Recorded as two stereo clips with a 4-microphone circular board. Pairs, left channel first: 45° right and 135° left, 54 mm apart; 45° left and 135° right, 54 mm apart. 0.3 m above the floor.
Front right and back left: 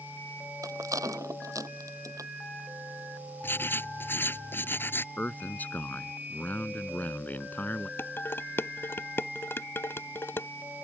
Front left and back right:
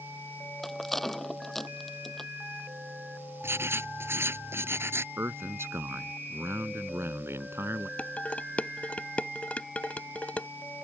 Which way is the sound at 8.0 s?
15° right.